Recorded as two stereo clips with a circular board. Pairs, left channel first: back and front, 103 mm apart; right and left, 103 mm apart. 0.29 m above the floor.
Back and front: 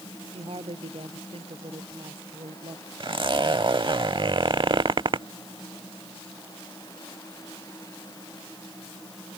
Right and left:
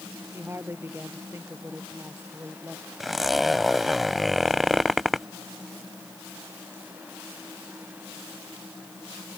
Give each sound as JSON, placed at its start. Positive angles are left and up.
{"t": 0.3, "sound": "a woman speaking", "azimuth_deg": 25}
{"t": 3.0, "sound": "a zipper", "azimuth_deg": 0}